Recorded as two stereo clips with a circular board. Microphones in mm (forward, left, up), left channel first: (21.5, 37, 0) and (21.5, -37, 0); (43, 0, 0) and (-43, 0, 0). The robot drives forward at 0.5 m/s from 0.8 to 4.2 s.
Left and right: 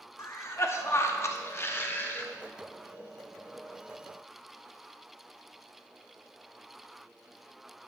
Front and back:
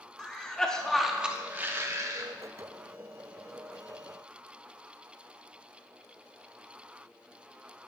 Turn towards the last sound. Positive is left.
turn(degrees=165)